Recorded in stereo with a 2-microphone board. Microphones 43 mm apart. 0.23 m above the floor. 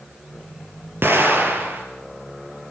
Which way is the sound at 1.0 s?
60° right (ahead or behind).